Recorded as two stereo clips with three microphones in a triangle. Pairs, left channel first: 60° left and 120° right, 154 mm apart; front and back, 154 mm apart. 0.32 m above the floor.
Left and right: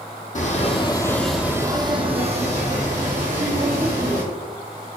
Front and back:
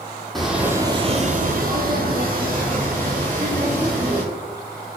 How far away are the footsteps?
About 0.8 m.